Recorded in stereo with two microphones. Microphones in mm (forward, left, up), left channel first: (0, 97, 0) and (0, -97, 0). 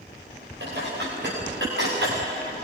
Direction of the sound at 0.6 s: 65° right (ahead or behind).